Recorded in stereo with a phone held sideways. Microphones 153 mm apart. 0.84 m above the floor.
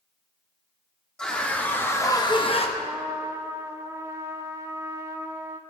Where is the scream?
5° left (ahead or behind), 2.5 m; by 2.7 s 40° left (ahead or behind), 1.1 m.